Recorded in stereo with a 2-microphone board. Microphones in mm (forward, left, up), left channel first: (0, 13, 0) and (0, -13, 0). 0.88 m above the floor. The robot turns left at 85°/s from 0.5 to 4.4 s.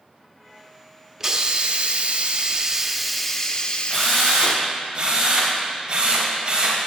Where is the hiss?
25° right, 0.6 m; by 4.7 s 65° left, 0.6 m.